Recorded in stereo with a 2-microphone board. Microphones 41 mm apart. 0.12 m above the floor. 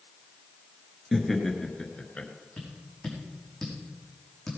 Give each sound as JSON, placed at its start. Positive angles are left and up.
{"t": 1.1, "sound": "laughter", "side_deg": -5, "distance_m": 2.0}
{"t": 2.6, "sound": "tapping", "side_deg": 5, "distance_m": 5.5}